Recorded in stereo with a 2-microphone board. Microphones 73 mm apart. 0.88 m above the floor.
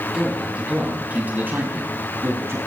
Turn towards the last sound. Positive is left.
turn(degrees=-40)  # may be behind; listen again after turning